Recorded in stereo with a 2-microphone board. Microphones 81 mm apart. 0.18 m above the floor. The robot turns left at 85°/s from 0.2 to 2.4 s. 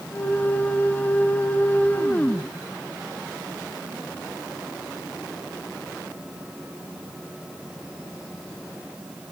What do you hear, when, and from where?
Only background noise.